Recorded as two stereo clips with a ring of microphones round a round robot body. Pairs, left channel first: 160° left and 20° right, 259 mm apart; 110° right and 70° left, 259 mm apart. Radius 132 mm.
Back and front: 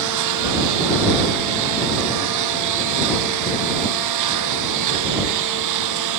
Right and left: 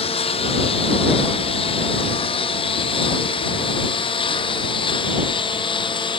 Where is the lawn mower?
45° right; by 6.2 s 40° right.